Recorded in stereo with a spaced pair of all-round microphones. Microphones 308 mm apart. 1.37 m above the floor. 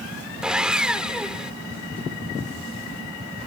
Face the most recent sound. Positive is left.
turn(degrees=-5)  # may be behind; listen again after turning